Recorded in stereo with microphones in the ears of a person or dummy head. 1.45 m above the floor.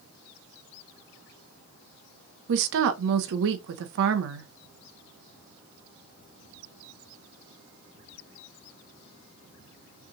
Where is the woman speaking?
70° right (ahead or behind), 0.6 m.